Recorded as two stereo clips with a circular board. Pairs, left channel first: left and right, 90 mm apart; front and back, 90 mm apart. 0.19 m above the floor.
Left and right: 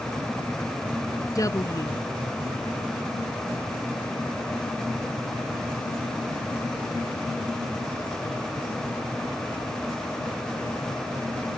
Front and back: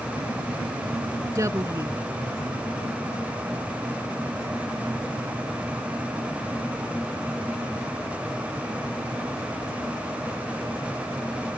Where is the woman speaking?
130° left.